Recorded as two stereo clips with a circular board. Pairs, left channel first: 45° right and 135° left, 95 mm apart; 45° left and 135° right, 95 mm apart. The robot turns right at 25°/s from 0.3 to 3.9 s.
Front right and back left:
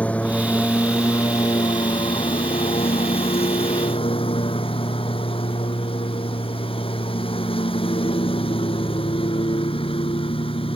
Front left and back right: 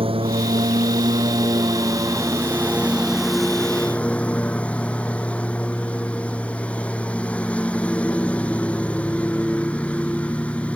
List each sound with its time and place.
0.0 s a lawn mower: 120° right; by 10.8 s 30° right